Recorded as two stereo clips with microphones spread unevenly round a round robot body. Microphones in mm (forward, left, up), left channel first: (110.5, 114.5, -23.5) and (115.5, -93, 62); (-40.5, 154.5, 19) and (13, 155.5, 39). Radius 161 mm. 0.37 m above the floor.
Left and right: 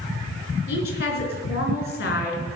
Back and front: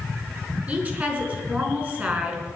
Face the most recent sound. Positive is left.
turn(degrees=65)